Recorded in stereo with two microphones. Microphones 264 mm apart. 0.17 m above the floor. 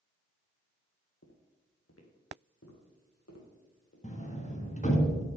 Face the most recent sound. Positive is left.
turn(degrees=25)  # may be behind; listen again after turning